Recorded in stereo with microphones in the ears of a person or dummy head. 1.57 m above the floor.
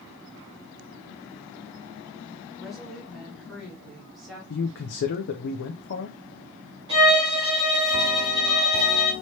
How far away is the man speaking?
About 0.6 m.